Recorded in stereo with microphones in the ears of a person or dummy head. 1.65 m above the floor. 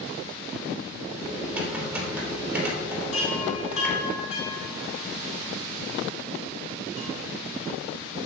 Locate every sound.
1.2 s typing on a keyboard: 10° right (ahead or behind), 3 m
3.1 s a chime: 40° left (ahead or behind), 2 m